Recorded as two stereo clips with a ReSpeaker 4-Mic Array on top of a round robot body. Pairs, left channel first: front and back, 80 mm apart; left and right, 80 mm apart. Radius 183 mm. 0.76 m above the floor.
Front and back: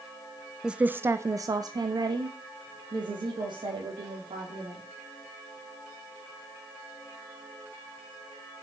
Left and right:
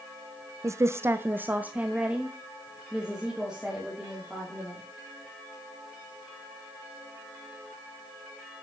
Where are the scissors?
No scissors in this recording.